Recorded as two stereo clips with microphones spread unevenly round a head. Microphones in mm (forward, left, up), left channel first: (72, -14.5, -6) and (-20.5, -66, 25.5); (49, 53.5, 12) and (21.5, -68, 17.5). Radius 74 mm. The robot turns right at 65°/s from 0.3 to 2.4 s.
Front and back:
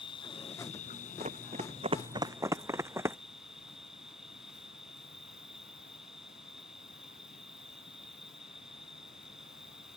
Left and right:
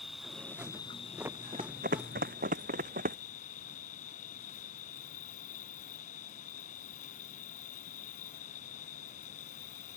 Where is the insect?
15° right; by 10.0 s 125° left.